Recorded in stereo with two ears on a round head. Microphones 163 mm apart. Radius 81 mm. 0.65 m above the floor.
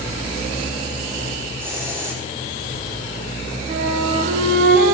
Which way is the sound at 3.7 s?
50° right (ahead or behind).